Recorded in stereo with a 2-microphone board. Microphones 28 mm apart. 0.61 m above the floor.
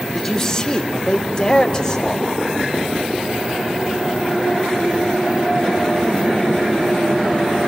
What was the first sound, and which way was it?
A man speaking, 25° left (ahead or behind).